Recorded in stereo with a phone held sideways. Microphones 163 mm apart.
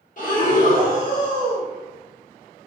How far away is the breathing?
About 1.0 m.